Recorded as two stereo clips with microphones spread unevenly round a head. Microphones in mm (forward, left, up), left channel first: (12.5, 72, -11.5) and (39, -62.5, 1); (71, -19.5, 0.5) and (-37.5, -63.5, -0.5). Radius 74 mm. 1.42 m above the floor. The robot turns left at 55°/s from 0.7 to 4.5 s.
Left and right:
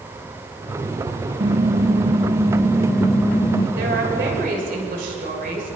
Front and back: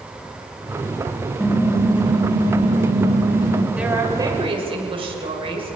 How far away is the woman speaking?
About 6 m.